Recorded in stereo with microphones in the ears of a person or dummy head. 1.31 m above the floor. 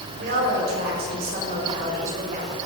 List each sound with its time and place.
0.1 s a woman speaking: 70° right (ahead or behind), 5 m; by 2.6 s 50° right (ahead or behind), 4.5 m